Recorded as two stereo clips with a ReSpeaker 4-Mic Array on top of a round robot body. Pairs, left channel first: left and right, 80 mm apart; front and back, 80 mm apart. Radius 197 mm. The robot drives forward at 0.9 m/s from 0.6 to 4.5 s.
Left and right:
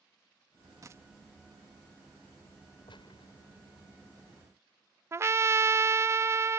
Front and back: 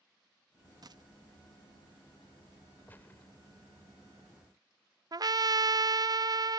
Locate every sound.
0.8 s a dropped coin: 140° right; by 1.0 s 150° right
2.9 s a gunshot: 65° left; by 3.3 s 70° left
5.1 s a trumpet: 145° right